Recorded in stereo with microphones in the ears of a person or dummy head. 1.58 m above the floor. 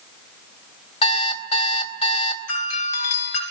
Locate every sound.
1.0 s an alarm clock: 30° left (ahead or behind), 3 m
2.5 s a doorbell: 85° left, 7.5 m